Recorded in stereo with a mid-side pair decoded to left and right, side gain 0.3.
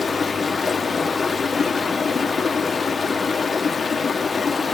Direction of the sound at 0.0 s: 50° left.